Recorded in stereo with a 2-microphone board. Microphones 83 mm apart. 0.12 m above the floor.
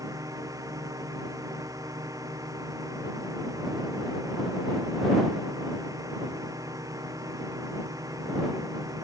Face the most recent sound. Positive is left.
turn(degrees=-45)  # may be behind; listen again after turning